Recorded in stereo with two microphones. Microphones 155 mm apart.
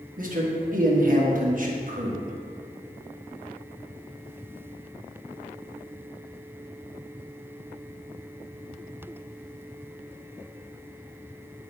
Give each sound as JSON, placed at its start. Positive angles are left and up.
{"t": 0.2, "sound": "a man speaking", "side_deg": -60, "distance_m": 1.3}